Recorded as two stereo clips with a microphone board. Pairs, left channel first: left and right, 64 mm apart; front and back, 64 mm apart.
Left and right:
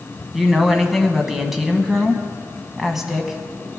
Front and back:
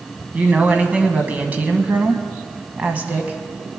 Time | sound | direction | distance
0.3 | a woman speaking | 170° right | 1.1 m